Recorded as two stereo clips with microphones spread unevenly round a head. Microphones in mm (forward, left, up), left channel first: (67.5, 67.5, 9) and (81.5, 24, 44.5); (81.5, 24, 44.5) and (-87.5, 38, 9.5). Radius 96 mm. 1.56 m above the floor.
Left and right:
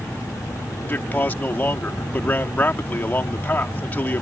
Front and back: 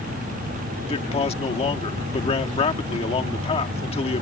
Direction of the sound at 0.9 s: 50° left.